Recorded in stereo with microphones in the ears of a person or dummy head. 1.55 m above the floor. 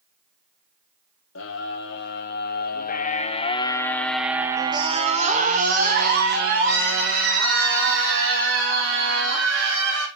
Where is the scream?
65° left (ahead or behind), 1.7 m; by 10.1 s 70° right (ahead or behind), 3.5 m.